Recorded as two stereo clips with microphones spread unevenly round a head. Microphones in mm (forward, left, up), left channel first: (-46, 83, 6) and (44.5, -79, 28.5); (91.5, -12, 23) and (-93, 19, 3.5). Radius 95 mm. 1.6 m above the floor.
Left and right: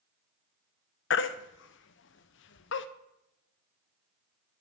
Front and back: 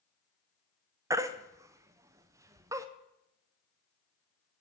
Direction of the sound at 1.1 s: 95° left.